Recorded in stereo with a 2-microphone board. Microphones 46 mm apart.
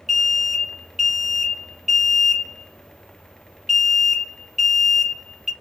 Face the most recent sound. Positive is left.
turn(degrees=-5)  # may be behind; listen again after turning